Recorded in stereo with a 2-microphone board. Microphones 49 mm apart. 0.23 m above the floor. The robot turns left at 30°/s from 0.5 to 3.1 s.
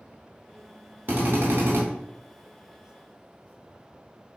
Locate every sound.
1.1 s a drill: 45° right (ahead or behind), 0.8 m; by 1.8 s 60° right (ahead or behind), 0.8 m